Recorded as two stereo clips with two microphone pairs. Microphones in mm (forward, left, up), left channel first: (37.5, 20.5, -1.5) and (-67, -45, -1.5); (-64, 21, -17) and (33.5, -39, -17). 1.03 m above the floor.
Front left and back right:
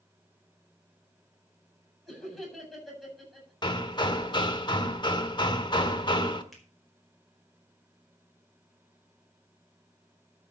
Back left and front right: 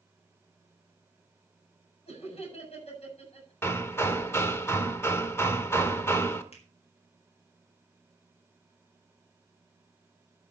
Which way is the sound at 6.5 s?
120° left.